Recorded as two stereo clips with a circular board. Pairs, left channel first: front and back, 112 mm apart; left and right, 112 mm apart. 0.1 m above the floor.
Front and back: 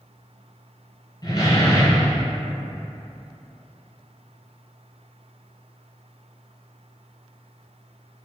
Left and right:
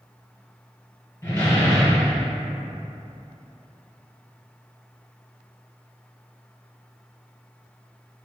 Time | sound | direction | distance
1.2 | a door slam | 25° left | 1.4 m